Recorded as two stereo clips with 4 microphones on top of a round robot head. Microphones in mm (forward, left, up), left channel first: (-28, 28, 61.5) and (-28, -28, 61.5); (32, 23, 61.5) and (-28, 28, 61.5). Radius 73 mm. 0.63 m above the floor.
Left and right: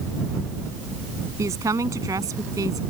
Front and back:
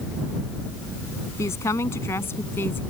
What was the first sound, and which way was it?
A woman speaking, 55° right.